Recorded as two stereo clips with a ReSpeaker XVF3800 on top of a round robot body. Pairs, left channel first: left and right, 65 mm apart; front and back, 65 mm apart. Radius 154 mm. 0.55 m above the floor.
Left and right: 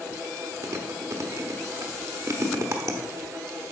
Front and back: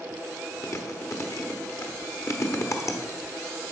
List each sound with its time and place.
0.6 s chewing: 45° right, 1.1 m